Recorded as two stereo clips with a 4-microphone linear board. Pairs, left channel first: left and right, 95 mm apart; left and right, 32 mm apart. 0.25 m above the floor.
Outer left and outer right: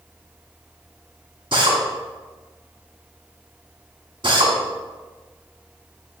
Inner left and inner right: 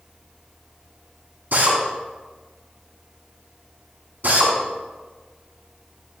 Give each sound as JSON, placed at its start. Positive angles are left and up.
{"t": 1.5, "sound": "a drill", "side_deg": -60, "distance_m": 1.9}